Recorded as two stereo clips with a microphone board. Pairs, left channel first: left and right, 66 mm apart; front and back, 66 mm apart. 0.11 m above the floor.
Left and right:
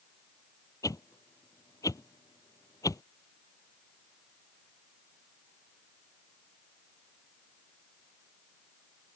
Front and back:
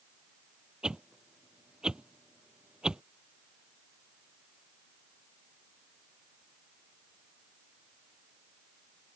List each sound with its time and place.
0.8 s a whoosh: 105° left